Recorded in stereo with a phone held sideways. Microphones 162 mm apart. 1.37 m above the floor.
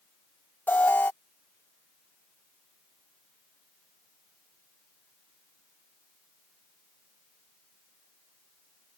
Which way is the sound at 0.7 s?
10° left (ahead or behind).